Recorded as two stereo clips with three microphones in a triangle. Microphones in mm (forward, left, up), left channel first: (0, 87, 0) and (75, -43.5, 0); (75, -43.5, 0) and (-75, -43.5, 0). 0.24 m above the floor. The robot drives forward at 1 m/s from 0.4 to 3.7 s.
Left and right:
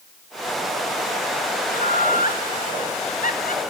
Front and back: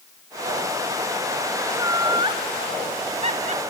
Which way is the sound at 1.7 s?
110° left.